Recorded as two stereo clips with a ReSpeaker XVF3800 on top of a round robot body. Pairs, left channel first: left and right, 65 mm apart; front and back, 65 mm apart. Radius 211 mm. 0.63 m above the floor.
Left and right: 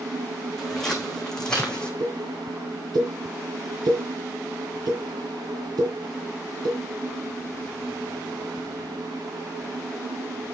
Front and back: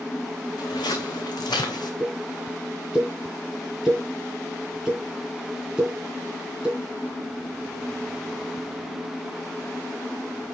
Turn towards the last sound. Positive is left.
turn(degrees=-100)